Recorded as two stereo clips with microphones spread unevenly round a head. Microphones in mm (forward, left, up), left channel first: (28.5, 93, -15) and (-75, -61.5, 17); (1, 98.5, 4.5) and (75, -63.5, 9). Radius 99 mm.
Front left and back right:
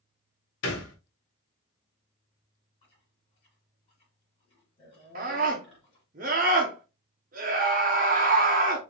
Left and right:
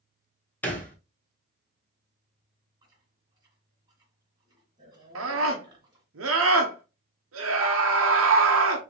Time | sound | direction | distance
0.6 | a thud | 35° left | 1.3 m
2.8 | chewing | 5° right | 2 m
5.2 | a scream | 70° right | 0.7 m